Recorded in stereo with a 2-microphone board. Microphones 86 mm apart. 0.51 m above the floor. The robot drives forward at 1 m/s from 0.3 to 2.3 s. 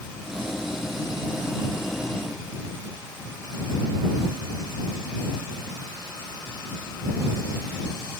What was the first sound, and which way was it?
Only background noise.